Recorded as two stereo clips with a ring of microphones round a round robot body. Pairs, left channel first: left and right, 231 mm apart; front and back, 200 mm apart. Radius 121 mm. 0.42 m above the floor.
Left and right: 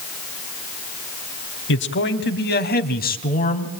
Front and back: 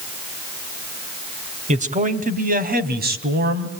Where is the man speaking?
125° left, 2.5 m; by 3.7 s 145° left, 3 m.